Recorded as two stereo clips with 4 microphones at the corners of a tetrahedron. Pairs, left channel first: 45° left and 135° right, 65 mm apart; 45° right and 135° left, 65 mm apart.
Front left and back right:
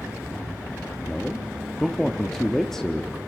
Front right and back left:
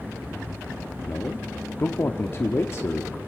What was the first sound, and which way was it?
A man speaking, 35° right.